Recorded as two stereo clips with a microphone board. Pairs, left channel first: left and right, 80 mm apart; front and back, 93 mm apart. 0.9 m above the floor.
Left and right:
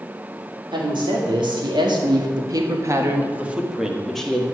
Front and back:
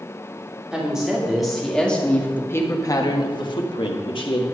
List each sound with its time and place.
0.7 s a woman speaking: 100° right, 2.5 m; by 4.5 s 10° left, 1.9 m